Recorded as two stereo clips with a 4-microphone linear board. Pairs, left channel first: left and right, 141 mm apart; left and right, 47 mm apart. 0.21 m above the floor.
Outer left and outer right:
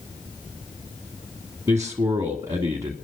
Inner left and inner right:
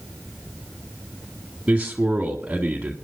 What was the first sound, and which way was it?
A man speaking, 20° right (ahead or behind).